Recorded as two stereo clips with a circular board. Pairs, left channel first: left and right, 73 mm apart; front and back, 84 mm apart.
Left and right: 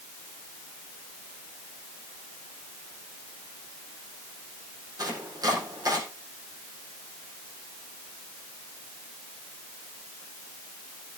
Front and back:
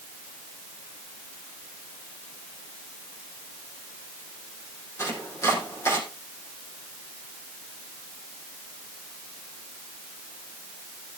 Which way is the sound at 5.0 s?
55° right.